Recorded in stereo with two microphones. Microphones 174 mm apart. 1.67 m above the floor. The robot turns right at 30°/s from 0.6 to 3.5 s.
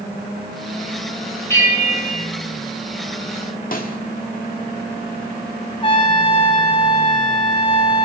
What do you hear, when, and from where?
1.5 s a bell: 15° left (ahead or behind), 3.5 m; by 2.3 s 35° left (ahead or behind), 3.5 m
3.7 s a snare drum: 55° left (ahead or behind), 2 m
5.8 s a trumpet: 30° left (ahead or behind), 2.5 m